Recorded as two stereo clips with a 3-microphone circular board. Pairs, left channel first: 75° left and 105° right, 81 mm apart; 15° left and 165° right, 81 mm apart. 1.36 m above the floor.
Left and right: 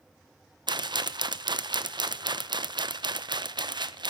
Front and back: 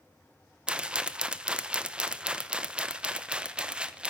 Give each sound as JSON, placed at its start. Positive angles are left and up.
{"t": 0.7, "sound": "a rattle", "azimuth_deg": -90, "distance_m": 0.7}